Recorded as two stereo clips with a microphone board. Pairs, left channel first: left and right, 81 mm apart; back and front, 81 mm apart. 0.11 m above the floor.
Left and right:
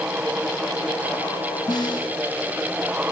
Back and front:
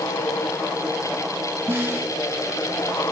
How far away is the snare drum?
About 1.7 m.